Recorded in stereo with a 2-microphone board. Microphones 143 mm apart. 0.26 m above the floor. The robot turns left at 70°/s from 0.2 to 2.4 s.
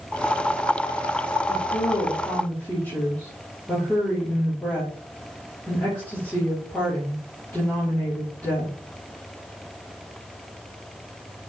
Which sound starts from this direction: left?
A woman speaking, at 1.5 s.